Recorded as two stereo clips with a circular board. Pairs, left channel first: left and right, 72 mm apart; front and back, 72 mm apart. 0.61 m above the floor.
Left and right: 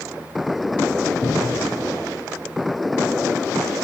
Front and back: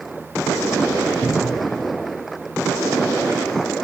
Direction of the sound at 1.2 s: 100° left.